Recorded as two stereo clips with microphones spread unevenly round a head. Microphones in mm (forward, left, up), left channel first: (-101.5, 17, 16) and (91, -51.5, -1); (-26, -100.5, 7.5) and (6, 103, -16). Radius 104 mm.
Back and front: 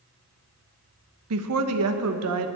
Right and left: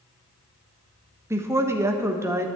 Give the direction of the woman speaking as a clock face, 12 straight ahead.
12 o'clock.